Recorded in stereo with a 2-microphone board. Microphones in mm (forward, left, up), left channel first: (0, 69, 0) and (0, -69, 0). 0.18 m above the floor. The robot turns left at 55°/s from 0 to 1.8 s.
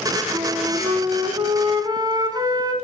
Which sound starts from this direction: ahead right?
A flute, at 0.3 s.